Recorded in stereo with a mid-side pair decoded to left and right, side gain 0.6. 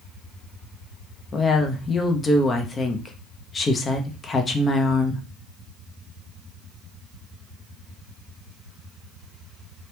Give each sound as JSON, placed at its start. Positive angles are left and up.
{"t": 1.3, "sound": "a woman speaking", "azimuth_deg": 25, "distance_m": 0.9}